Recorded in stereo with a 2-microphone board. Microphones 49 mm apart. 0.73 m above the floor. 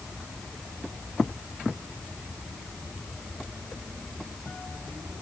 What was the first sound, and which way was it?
Only background noise.